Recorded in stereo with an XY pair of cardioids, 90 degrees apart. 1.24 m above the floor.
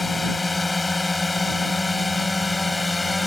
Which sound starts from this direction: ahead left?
A drone, at 0.0 s.